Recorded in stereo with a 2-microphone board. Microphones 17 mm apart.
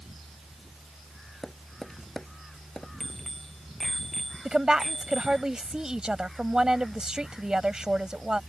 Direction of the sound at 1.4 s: 30° left (ahead or behind).